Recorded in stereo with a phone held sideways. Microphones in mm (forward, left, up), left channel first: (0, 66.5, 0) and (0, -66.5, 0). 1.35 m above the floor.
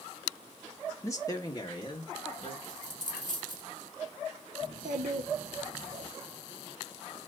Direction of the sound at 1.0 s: 20° left (ahead or behind).